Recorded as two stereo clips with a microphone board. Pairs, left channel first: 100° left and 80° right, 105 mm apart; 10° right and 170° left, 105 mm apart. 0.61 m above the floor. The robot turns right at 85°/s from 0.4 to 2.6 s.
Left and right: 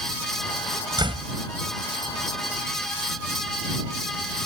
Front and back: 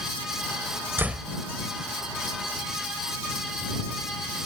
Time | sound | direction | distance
1.0 | a door slam | 120° right | ?